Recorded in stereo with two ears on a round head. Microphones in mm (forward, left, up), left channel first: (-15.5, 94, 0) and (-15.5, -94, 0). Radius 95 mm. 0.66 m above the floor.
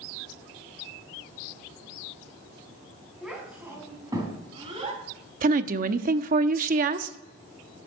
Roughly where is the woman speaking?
Right.